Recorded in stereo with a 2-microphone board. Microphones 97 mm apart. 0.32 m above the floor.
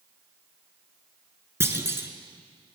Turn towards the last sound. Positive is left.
turn(degrees=-25)  # may be behind; listen again after turning